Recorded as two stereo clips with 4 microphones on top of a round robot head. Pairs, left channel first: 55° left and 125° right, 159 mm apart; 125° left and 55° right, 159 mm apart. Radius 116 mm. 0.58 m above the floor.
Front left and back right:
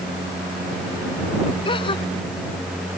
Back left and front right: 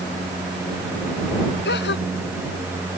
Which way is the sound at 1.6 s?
120° left.